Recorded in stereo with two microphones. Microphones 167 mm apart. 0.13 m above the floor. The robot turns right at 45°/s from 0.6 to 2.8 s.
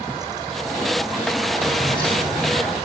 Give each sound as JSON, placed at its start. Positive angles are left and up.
{"t": 1.6, "sound": "keys jangling", "azimuth_deg": 15, "distance_m": 3.5}